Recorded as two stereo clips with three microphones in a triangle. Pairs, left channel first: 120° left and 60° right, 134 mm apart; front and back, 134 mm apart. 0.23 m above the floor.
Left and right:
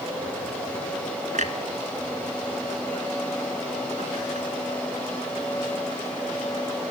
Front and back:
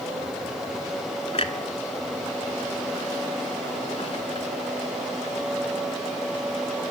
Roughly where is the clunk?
Ahead right.